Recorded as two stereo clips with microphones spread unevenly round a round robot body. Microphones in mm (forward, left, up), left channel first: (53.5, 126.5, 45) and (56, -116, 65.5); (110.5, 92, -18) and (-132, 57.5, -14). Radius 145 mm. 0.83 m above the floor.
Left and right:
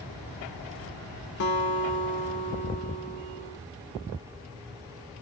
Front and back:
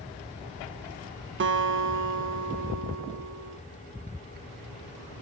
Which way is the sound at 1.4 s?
140° left.